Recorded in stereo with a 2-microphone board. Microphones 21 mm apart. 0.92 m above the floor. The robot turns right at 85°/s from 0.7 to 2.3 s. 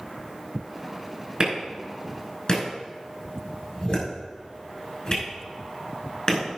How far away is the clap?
About 5 m.